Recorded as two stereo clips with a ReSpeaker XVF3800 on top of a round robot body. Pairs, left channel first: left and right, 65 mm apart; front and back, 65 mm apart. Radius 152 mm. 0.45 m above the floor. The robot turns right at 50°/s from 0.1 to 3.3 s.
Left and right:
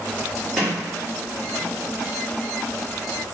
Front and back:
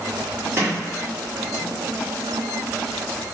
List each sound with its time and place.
0.6 s a sliding door: 175° left, 1.5 m; by 1.8 s 120° right, 1.5 m